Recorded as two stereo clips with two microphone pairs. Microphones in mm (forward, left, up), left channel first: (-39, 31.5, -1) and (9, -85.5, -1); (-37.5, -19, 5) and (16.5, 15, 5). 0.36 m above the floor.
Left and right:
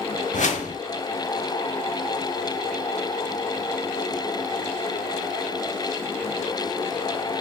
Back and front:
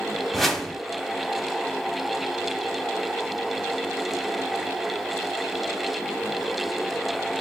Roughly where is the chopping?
I don't hear chopping.